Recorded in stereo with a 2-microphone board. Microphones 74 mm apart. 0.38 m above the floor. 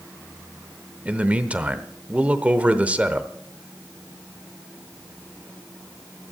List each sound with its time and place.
1.1 s a man speaking: 20° right (ahead or behind), 0.8 m